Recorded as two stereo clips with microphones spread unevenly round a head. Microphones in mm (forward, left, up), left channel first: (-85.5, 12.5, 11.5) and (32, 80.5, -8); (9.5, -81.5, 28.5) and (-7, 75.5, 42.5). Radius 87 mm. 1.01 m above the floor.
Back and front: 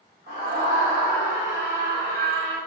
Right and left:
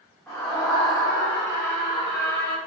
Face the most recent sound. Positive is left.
turn(degrees=-70)